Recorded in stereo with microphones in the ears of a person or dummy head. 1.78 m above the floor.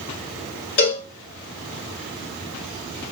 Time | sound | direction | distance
0.8 | a cowbell | 25° left (ahead or behind) | 1.6 m